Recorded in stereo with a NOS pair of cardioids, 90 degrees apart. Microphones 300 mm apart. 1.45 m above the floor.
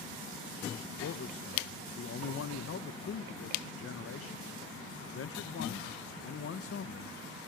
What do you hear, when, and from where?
1.0 s a man speaking: 50° left, 1.8 m